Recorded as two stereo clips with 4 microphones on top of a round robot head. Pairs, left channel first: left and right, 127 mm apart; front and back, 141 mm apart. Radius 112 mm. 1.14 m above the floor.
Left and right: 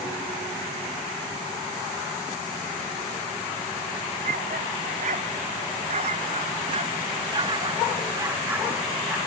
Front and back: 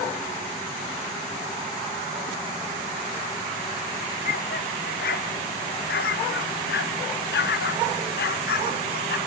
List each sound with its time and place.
4.2 s a dog barking: 45° right; by 9.2 s 5° right